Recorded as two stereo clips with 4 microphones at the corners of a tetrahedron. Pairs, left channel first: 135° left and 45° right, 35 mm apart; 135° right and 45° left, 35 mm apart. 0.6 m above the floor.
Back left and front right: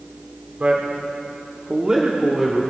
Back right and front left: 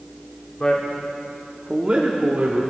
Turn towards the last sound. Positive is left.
turn(degrees=35)